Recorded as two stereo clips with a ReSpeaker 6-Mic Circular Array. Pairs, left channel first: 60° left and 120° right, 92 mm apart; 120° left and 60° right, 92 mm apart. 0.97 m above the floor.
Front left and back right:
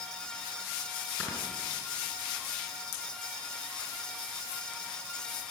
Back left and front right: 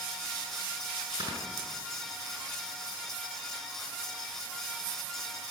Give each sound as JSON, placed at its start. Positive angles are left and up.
{"t": 1.2, "sound": "snoring", "azimuth_deg": -15, "distance_m": 7.0}